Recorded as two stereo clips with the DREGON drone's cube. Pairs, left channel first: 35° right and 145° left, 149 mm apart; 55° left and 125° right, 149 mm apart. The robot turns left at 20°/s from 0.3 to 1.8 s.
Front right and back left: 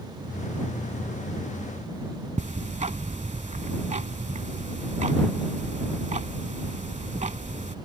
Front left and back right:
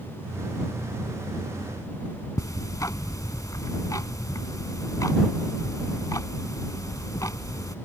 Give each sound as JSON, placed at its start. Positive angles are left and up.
{"t": 2.4, "sound": "ticking", "azimuth_deg": 120}